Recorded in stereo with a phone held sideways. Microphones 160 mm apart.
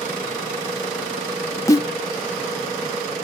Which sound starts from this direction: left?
A snare drum, at 1.7 s.